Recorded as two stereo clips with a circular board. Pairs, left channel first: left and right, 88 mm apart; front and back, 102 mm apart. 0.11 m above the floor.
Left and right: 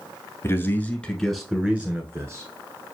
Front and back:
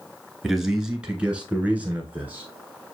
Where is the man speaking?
95° left, 1.1 m; by 2.5 s 120° right, 1.3 m.